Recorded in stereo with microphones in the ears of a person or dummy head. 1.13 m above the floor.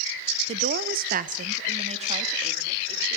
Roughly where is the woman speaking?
Right.